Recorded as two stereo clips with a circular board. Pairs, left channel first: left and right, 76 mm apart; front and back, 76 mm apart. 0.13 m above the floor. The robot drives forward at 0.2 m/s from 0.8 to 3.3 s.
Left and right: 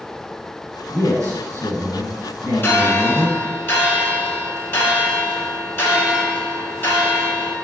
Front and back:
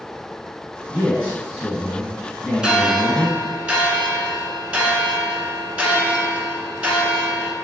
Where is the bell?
105° left, 0.8 m; by 7.5 s 120° left, 0.9 m.